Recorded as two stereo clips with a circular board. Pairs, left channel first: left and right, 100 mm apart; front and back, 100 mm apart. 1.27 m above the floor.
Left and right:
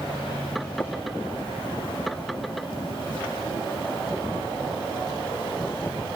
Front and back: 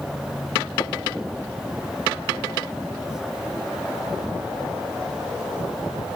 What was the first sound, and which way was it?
Tapping, 25° left.